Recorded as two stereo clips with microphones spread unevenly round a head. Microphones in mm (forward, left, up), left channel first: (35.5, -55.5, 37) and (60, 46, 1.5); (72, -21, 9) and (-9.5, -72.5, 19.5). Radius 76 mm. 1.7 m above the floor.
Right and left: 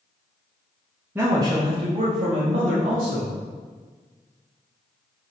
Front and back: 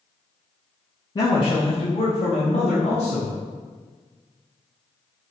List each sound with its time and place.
1.1 s a man speaking: 10° right, 0.5 m; by 3.4 s 85° left, 1.2 m